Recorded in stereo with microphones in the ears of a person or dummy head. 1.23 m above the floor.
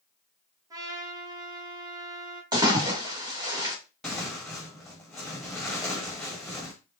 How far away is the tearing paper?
About 1.3 m.